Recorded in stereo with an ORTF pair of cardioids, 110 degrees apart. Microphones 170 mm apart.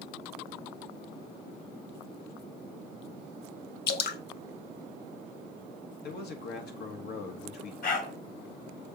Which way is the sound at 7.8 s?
55° left.